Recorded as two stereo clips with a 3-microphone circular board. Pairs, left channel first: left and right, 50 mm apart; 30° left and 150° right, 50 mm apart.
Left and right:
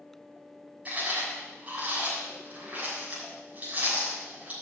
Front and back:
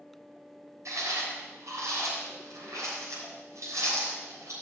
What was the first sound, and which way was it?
Chewing, 150° right.